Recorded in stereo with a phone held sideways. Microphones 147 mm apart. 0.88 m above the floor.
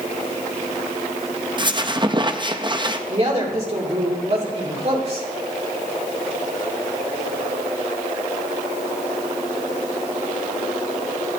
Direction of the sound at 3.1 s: 40° right (ahead or behind).